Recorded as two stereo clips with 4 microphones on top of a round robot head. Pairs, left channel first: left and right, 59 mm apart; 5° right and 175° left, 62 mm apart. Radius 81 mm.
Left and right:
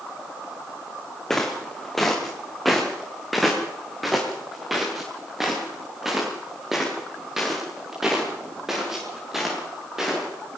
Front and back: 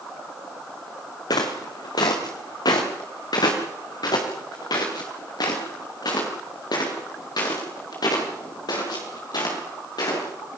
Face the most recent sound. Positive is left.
turn(degrees=-5)